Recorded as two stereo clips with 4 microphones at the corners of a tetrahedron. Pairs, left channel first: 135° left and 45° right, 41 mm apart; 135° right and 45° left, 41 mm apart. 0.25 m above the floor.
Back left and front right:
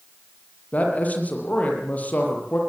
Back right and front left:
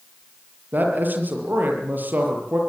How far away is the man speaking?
About 6.5 m.